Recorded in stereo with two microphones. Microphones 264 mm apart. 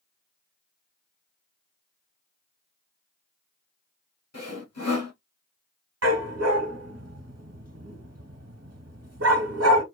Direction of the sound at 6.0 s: 70° right (ahead or behind).